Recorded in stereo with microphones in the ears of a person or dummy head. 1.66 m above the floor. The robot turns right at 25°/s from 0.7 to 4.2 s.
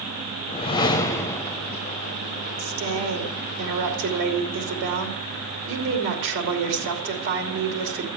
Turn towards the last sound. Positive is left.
turn(degrees=-65)